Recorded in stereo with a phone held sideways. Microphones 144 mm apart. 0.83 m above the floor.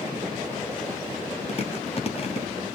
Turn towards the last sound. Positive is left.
turn(degrees=45)  # may be behind; listen again after turning